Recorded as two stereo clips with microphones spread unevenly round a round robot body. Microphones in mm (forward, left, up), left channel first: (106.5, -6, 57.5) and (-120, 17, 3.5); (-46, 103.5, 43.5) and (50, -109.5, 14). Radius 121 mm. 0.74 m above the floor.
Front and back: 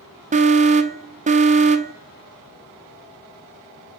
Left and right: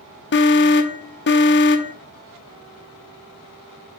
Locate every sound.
0.3 s an alarm: 145° left, 0.6 m